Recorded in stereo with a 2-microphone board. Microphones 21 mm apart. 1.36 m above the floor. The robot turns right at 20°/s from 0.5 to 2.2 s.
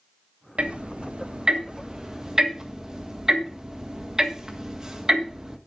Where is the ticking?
55° right (ahead or behind), 1.5 m; by 5.6 s 25° right (ahead or behind), 1.5 m.